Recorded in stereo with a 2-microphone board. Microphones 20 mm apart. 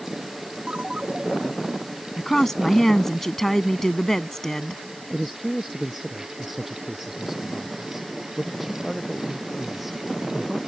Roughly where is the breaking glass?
No breaking glass in this recording.